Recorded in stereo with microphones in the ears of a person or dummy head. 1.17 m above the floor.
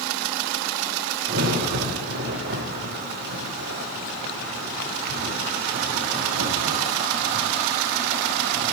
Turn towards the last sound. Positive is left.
turn(degrees=-65)  # may be behind; listen again after turning